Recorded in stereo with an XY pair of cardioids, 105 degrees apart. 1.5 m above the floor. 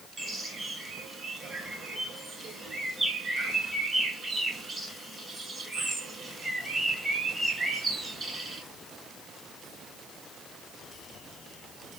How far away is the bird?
About 5 m.